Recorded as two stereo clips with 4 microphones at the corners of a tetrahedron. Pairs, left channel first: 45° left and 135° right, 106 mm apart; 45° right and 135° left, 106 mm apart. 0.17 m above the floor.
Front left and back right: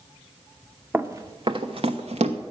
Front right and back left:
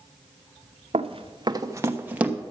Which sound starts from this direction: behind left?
Running footsteps, at 0.9 s.